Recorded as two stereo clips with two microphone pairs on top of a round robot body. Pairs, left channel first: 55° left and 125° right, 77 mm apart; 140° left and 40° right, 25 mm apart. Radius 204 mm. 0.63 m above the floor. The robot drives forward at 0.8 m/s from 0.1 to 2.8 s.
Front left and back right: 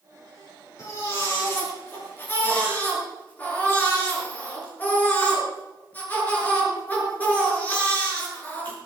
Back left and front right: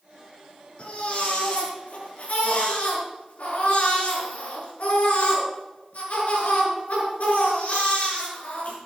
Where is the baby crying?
105° left, 5 m; by 8.8 s 120° left, 5.5 m.